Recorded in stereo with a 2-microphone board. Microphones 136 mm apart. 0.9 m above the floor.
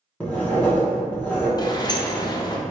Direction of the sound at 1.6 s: 30° left (ahead or behind).